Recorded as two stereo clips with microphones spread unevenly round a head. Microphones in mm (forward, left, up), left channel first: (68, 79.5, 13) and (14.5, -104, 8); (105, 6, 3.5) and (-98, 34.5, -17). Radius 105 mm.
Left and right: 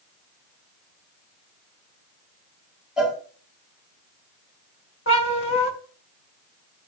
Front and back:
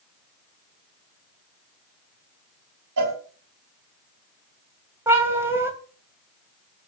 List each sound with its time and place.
3.0 s a cowbell: 165° left, 5 m
5.1 s a cat meowing: 90° left, 2.5 m